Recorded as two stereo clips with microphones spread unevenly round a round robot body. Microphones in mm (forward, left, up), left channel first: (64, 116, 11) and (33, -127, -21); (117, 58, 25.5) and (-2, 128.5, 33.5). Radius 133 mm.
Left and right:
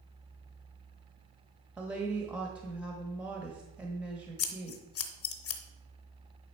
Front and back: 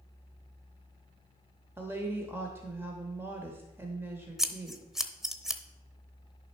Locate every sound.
1.8 s a woman speaking: 155° right, 0.9 m
4.4 s scissors: 60° left, 0.9 m